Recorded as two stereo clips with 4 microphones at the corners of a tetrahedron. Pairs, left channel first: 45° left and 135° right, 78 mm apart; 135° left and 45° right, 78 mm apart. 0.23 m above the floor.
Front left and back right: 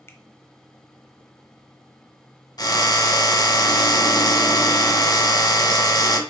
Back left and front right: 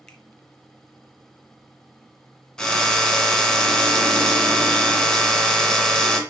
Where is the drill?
55° left, 1.4 m.